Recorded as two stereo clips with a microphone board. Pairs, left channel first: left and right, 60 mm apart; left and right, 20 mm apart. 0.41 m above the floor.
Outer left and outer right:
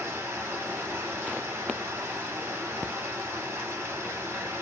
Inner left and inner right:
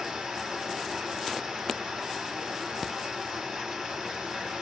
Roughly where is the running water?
Right.